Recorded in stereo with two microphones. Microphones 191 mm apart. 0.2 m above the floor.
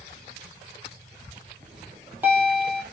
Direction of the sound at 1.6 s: 10° right (ahead or behind).